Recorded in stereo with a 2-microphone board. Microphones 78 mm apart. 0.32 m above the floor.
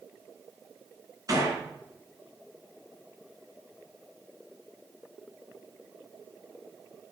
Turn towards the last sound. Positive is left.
turn(degrees=-50)  # may be behind; listen again after turning